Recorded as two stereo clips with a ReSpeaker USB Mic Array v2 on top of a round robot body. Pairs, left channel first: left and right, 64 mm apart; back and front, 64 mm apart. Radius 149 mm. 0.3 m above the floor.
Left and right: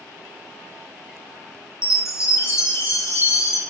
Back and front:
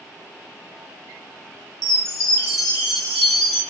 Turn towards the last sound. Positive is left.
turn(degrees=95)